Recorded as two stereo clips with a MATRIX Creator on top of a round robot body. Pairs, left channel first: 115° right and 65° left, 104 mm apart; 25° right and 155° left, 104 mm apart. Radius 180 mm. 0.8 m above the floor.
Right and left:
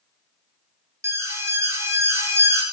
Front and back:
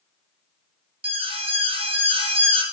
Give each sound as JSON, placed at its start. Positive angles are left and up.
{"t": 1.0, "sound": "an alarm", "azimuth_deg": 130, "distance_m": 3.0}